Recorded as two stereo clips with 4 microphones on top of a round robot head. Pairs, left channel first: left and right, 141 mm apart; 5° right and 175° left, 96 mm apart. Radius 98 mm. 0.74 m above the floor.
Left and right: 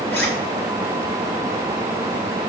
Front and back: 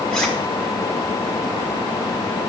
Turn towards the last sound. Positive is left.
turn(degrees=75)